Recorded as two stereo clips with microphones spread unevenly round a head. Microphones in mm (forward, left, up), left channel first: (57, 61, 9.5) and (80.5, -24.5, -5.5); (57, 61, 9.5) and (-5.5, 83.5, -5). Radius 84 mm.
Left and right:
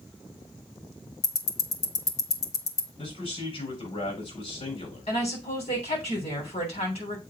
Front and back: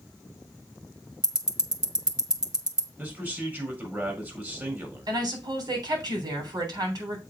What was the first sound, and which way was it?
Ticking, 125° left.